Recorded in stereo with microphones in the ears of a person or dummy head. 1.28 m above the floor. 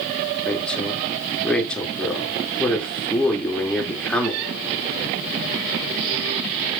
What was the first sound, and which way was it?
A woman speaking, 10° left (ahead or behind).